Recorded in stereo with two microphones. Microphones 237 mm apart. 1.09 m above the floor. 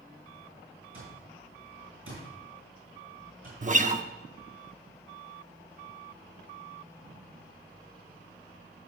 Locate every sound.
0.9 s an alarm clock: 70° right (ahead or behind), 6 m
3.6 s a guitar: 35° right (ahead or behind), 0.7 m